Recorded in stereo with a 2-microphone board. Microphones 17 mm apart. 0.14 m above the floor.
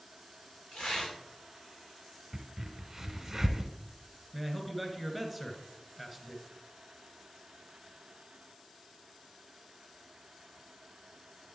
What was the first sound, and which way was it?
Tearing paper, 55° left (ahead or behind).